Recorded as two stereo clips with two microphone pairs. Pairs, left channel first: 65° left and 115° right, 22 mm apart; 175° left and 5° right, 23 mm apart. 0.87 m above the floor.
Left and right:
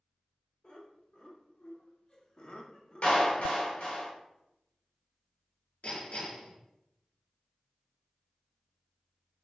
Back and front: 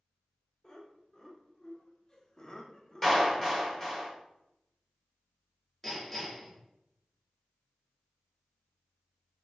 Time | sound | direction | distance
0.6 | laughter | 105° left | 2.5 m
3.0 | a clap | 90° left | 3 m
5.8 | hammering | 85° left | 3.5 m